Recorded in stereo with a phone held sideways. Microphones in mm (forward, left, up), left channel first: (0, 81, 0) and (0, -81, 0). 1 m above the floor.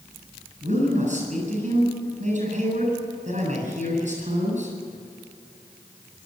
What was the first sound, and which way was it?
A man speaking, 50° right (ahead or behind).